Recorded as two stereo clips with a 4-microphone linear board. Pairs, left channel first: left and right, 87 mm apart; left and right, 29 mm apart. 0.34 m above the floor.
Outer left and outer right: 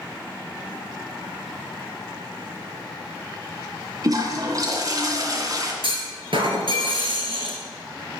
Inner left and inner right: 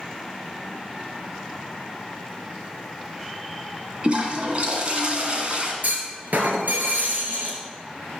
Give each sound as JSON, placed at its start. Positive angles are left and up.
{"t": 4.0, "sound": "a toilet flushing", "side_deg": -45, "distance_m": 2.0}
{"t": 5.8, "sound": "a clunk", "side_deg": -85, "distance_m": 2.5}